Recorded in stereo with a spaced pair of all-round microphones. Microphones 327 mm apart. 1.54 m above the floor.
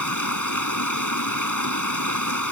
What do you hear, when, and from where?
0.0 s running water: 65° left (ahead or behind)